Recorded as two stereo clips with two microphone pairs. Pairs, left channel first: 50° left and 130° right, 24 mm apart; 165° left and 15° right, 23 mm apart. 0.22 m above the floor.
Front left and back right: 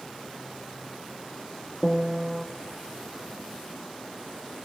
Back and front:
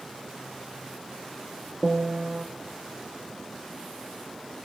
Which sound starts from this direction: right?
A piano, at 1.8 s.